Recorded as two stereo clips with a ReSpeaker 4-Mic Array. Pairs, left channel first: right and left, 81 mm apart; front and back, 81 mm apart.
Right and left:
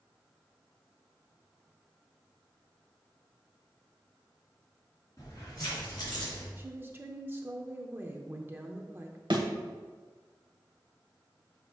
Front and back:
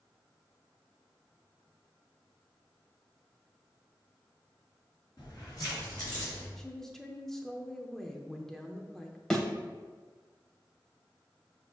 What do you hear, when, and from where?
5.2 s keys jangling: 40° right, 3 m; by 6.5 s 55° right, 4.5 m
6.6 s a woman speaking: 80° left, 0.7 m
9.3 s a thud: 85° left, 0.9 m